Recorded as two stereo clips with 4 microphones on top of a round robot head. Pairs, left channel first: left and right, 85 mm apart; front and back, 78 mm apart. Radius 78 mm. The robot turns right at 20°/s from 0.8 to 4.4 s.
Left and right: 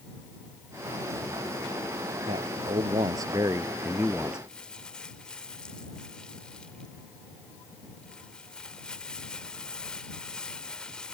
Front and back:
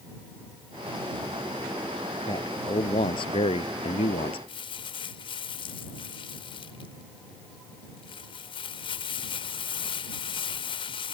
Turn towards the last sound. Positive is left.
turn(degrees=5)